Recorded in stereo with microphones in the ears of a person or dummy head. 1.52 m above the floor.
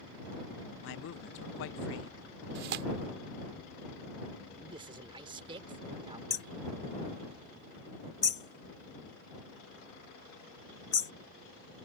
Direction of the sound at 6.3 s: 20° left (ahead or behind).